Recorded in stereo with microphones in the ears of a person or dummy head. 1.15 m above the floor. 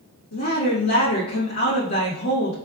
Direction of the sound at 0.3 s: 80° left.